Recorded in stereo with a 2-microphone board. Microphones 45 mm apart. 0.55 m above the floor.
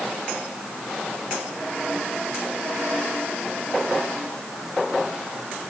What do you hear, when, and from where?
Only background noise.